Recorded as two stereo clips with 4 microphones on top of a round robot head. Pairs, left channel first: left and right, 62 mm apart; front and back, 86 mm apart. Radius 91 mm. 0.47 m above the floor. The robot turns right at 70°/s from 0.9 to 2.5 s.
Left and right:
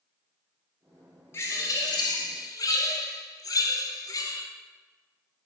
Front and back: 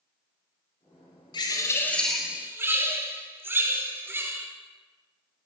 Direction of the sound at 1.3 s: 30° left.